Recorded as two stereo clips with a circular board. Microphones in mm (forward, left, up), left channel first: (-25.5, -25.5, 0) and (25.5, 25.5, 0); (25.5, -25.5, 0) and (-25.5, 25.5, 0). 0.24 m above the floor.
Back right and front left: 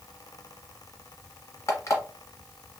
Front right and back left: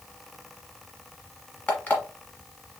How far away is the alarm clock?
About 1.2 m.